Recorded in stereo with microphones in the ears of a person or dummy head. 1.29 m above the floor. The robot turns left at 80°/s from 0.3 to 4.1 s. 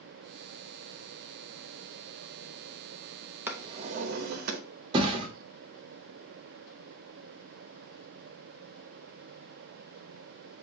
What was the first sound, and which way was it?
A drawer, 10° right.